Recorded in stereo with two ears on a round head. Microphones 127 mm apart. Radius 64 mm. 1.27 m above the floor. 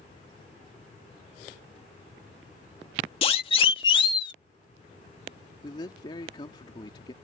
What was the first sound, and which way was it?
A siren, 40° left (ahead or behind).